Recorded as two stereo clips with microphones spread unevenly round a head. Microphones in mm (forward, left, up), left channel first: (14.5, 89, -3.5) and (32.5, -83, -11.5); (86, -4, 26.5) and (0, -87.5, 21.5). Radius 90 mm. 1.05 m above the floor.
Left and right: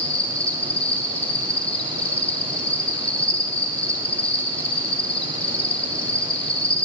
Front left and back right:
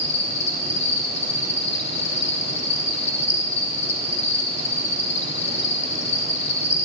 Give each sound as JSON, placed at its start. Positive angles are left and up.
{"t": 0.0, "sound": "an insect", "azimuth_deg": 15, "distance_m": 1.9}